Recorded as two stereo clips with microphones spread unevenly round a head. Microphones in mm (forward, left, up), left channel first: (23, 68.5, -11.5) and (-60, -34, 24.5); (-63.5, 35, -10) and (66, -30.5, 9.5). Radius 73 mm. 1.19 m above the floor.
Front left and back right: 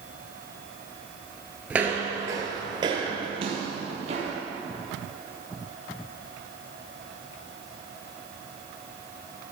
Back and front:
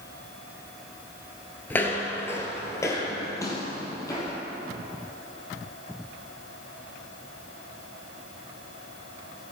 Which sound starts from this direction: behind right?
Footsteps, at 1.7 s.